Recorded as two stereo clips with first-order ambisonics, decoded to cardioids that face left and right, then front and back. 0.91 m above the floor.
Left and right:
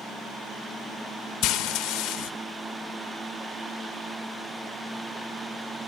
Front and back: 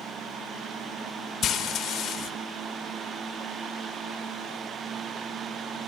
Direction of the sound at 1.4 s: 60° left.